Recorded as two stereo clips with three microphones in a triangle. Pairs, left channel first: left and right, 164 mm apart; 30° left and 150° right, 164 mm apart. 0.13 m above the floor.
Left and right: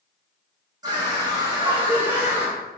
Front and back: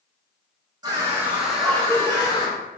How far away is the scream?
About 1.8 m.